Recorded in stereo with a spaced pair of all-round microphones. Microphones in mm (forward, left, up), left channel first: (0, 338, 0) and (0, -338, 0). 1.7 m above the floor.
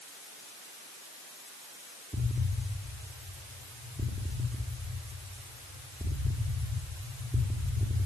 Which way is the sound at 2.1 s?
5° right (ahead or behind).